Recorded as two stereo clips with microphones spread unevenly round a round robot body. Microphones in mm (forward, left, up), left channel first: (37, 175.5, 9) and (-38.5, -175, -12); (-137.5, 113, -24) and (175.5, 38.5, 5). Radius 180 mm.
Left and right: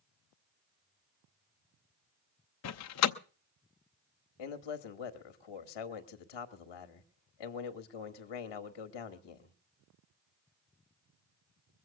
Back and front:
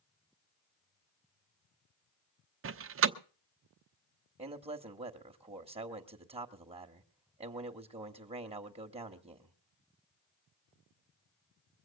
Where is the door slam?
35° left, 0.8 m.